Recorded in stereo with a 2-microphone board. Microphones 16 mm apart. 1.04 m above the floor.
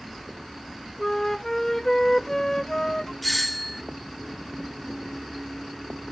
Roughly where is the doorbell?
Centre.